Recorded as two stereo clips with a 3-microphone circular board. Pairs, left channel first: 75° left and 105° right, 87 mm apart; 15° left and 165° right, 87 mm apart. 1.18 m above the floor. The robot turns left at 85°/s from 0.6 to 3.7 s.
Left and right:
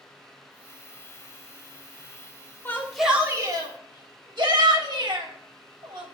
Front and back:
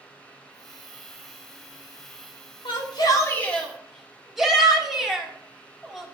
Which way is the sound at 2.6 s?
15° left.